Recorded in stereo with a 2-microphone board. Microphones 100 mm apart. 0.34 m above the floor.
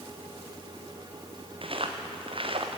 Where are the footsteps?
60° right (ahead or behind), 3.5 m.